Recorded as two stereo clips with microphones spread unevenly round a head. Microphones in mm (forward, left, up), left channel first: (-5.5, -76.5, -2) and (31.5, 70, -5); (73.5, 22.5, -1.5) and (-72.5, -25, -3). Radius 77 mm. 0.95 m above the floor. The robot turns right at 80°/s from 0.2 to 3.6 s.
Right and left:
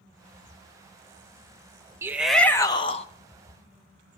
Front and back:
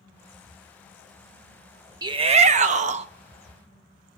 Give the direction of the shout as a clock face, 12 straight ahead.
7 o'clock.